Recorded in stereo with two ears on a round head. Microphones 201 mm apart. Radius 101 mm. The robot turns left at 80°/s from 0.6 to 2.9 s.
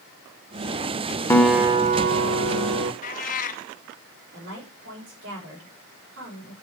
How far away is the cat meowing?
About 0.8 m.